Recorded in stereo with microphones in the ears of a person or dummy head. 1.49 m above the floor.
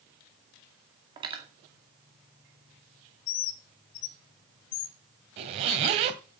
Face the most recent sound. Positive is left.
turn(degrees=-35)  # may be behind; listen again after turning